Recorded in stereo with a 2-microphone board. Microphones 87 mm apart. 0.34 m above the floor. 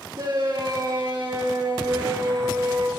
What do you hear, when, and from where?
0.1 s a shout: 55° right (ahead or behind), 6.5 m